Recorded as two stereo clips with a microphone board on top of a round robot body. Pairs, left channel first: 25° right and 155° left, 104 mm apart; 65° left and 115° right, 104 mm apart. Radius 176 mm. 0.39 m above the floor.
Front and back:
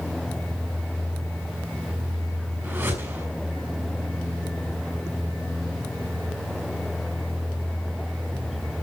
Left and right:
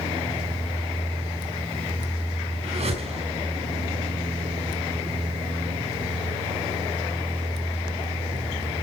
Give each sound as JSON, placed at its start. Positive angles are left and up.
{"t": 2.6, "sound": "a whoosh", "azimuth_deg": -135, "distance_m": 7.5}